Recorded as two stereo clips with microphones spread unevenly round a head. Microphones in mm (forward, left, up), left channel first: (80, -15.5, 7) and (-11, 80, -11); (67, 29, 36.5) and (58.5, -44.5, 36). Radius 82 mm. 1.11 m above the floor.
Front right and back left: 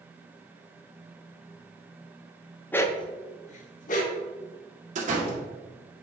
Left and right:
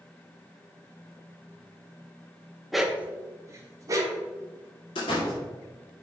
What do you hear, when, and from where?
2.7 s a dog barking: 5° right, 0.5 m; by 4.2 s 55° right, 1.4 m
5.0 s a door slam: 105° left, 1.8 m